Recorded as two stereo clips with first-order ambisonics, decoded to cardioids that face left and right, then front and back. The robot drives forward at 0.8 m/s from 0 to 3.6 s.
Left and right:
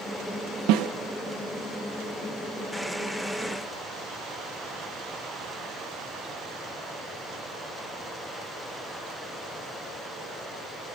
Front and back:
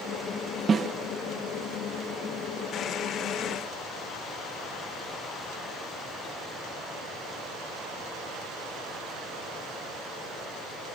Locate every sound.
0.7 s a snare drum: 110° right, 0.9 m; by 0.9 s 120° right, 1.0 m